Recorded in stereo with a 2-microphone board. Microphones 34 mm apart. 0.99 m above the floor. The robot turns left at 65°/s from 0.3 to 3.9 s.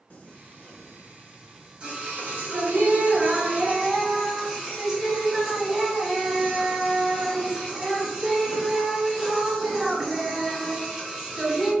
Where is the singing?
70° left, 1.4 m; by 11.7 s 160° right, 1.4 m.